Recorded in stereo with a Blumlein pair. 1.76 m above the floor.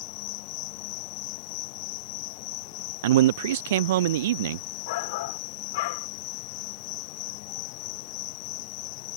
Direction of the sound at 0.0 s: 45° left.